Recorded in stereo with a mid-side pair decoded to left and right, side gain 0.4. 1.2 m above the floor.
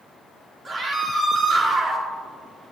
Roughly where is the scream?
Ahead right.